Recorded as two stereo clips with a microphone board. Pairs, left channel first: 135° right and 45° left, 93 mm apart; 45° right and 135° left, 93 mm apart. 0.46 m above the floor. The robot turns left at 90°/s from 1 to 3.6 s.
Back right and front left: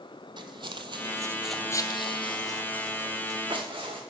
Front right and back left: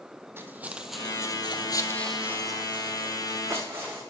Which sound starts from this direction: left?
Footsteps, at 0.4 s.